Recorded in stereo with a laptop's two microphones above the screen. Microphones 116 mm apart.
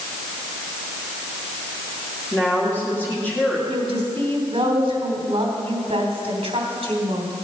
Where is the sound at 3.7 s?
55° right (ahead or behind), 3 m.